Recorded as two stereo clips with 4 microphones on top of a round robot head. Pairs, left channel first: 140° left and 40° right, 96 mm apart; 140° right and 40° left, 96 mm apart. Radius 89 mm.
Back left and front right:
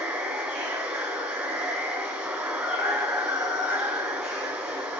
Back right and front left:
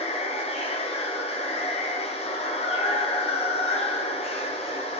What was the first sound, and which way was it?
Running water, 120° right.